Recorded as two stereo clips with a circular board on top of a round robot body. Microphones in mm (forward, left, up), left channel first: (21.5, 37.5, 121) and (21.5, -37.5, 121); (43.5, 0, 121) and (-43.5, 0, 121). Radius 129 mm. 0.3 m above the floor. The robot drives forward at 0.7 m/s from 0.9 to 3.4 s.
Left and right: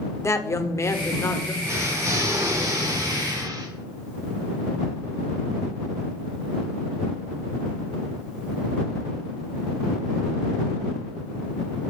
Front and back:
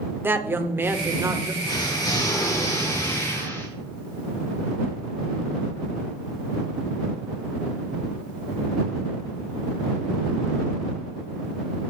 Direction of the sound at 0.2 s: 125° left.